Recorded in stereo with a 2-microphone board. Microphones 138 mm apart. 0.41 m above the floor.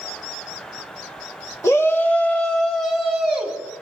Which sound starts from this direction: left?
A shout, at 1.6 s.